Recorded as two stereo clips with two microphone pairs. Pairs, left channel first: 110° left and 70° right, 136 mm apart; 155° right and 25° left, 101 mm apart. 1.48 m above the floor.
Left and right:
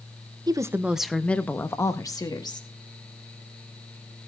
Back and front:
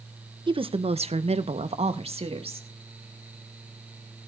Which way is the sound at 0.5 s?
15° right.